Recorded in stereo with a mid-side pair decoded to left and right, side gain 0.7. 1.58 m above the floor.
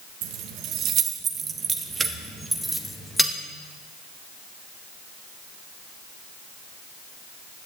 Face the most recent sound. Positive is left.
turn(degrees=5)